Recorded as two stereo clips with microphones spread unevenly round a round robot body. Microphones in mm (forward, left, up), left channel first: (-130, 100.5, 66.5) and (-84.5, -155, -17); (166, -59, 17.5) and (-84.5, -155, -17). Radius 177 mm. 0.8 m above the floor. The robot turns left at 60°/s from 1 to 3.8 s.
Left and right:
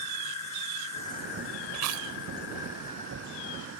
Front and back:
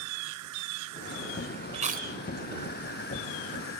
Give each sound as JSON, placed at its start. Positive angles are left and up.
{"t": 0.0, "sound": "an insect", "azimuth_deg": 170}
{"t": 1.7, "sound": "chewing", "azimuth_deg": -90}